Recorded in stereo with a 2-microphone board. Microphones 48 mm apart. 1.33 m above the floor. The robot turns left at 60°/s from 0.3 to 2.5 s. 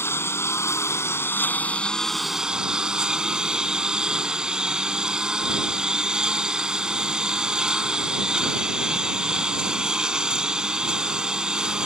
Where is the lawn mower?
115° left; by 11.9 s 20° right.